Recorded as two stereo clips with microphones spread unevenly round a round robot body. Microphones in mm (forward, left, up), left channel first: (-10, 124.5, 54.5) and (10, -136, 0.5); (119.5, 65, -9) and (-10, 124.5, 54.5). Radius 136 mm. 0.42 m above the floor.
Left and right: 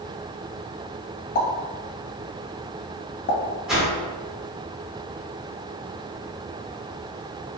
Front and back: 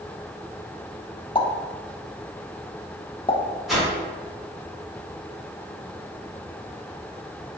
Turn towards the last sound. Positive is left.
turn(degrees=-30)